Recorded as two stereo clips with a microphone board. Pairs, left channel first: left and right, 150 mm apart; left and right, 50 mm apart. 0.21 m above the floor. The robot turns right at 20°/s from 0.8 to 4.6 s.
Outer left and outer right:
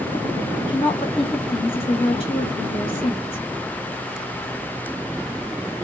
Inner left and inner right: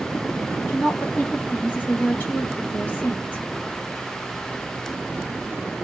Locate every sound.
0.6 s a woman speaking: 60° left, 1.5 m; by 3.4 s 110° left, 1.5 m